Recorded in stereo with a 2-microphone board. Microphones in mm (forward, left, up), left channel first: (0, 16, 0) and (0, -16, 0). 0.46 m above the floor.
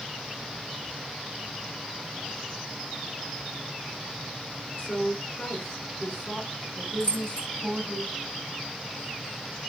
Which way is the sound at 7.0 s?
55° left (ahead or behind).